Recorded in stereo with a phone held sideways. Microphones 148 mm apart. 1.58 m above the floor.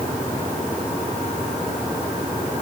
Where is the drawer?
No drawer in this recording.